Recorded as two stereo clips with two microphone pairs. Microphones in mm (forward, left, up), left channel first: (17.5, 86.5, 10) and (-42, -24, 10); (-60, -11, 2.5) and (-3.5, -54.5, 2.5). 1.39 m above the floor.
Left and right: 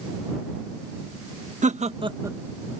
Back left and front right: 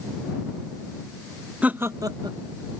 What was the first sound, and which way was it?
Laughter, 110° right.